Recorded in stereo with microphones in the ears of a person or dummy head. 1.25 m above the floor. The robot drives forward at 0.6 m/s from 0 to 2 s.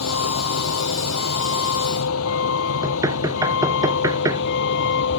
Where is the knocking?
20° right (ahead or behind).